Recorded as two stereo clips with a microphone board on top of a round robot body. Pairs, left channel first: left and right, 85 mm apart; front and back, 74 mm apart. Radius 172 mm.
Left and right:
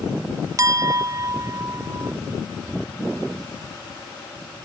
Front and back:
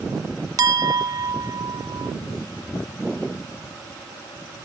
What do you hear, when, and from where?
0.6 s a clink: 145° right